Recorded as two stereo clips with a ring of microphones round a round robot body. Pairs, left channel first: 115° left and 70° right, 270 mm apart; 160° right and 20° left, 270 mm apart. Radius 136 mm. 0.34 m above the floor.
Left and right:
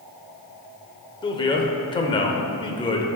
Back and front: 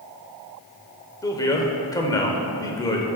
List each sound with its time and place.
1.2 s a man speaking: 150° left, 1.0 m